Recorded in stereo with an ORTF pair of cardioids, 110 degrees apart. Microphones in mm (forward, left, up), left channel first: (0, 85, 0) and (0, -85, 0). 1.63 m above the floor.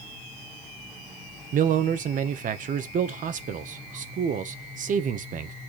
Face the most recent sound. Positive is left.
turn(degrees=-55)